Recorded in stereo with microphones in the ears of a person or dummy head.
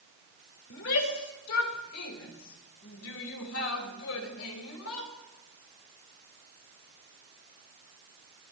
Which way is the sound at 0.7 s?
75° left (ahead or behind).